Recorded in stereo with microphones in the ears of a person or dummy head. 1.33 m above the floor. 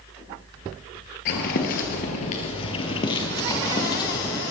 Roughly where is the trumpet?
No trumpet in this recording.